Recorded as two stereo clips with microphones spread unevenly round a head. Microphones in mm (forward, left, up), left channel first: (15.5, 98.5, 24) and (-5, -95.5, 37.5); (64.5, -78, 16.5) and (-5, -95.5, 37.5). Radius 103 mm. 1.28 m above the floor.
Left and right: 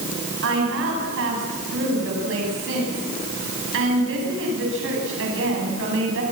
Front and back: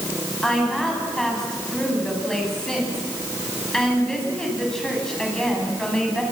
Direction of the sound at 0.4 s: 70° right.